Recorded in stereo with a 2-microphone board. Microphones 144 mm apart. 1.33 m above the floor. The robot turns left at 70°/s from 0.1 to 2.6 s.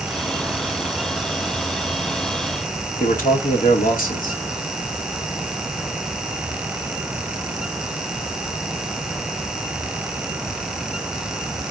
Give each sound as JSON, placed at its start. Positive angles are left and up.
{"t": 3.0, "sound": "a man speaking", "side_deg": 70, "distance_m": 1.5}